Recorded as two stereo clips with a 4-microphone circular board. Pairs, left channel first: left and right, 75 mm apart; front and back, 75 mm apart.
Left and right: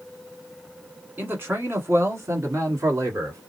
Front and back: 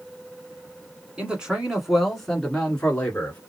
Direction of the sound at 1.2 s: 120° right.